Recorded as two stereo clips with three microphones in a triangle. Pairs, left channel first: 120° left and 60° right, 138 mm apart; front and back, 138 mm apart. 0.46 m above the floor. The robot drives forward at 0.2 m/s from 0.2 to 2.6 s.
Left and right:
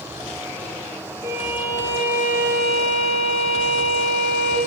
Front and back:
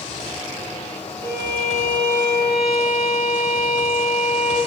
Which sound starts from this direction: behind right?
A violin, at 1.2 s.